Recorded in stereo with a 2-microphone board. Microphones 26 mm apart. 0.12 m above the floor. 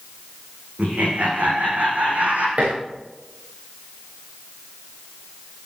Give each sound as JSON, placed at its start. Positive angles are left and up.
{"t": 0.8, "sound": "laughter", "side_deg": -75, "distance_m": 9.5}
{"t": 2.6, "sound": "dishes clattering", "side_deg": -60, "distance_m": 8.0}